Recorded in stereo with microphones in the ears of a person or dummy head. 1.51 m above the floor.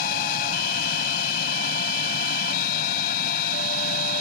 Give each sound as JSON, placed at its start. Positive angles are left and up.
{"t": 0.0, "sound": "a machine running", "side_deg": 60}